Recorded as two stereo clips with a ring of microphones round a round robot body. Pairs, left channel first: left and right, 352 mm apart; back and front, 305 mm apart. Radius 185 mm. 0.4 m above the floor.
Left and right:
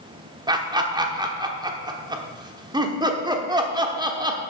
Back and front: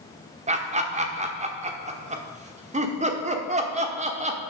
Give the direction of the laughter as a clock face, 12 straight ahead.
1 o'clock.